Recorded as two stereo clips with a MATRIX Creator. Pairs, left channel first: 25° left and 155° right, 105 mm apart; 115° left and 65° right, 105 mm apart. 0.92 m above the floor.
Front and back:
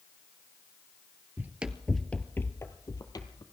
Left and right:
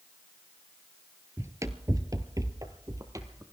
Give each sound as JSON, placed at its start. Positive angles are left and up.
{"t": 1.4, "sound": "running footsteps", "azimuth_deg": -105, "distance_m": 1.0}